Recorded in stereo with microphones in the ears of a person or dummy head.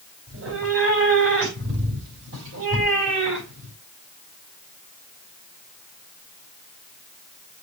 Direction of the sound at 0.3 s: 85° right.